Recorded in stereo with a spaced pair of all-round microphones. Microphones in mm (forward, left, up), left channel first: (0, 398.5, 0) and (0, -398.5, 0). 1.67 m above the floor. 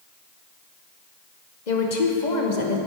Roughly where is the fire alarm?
No fire alarm in this recording.